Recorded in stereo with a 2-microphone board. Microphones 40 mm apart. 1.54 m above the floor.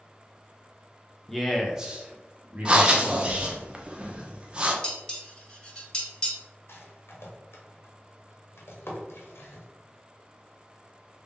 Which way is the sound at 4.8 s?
15° left (ahead or behind).